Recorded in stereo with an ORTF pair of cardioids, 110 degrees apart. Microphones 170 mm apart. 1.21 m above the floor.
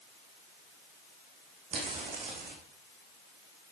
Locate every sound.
1.7 s footsteps: 45° right, 4 m